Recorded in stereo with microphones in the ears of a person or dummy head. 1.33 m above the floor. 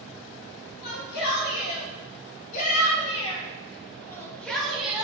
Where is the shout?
65° left (ahead or behind), 3.5 m; by 5.0 s 10° right (ahead or behind), 1.8 m.